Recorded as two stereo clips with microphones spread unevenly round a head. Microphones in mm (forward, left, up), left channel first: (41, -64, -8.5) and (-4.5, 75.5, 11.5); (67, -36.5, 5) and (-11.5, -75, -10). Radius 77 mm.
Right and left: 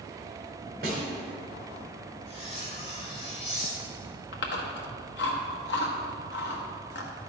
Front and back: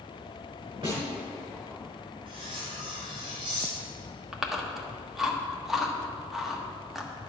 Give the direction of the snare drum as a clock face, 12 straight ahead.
7 o'clock.